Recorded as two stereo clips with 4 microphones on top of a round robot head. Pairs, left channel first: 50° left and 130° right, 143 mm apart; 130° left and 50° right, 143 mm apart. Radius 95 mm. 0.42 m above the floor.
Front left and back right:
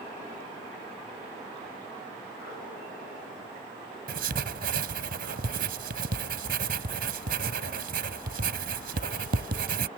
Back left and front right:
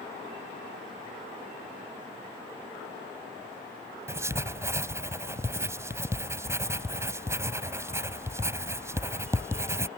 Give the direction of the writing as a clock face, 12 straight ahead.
4 o'clock.